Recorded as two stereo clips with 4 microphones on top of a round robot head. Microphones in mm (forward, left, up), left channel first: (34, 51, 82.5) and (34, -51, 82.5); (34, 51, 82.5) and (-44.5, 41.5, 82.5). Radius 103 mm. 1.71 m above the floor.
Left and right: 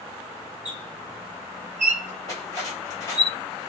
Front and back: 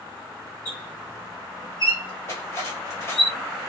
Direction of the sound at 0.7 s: 110° right.